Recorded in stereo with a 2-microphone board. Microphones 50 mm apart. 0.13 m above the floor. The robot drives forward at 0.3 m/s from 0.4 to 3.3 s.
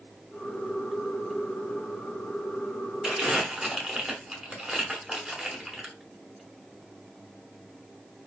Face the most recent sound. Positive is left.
turn(degrees=-10)  # may be behind; listen again after turning